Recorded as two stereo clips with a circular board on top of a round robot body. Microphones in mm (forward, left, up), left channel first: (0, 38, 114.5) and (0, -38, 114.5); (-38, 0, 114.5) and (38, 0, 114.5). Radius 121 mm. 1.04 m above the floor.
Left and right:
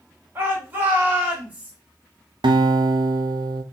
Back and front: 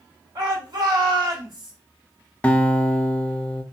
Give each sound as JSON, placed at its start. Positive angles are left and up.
{"t": 0.3, "sound": "a shout", "azimuth_deg": -30, "distance_m": 2.5}
{"t": 2.4, "sound": "a guitar", "azimuth_deg": -105, "distance_m": 0.6}